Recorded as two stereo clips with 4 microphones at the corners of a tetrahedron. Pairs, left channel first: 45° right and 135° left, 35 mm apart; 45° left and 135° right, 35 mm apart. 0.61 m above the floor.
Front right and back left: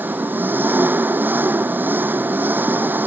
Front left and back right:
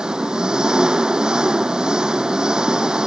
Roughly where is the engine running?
Behind left.